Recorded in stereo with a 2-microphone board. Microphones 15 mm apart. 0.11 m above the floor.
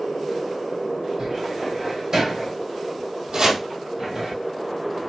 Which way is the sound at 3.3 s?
65° right (ahead or behind).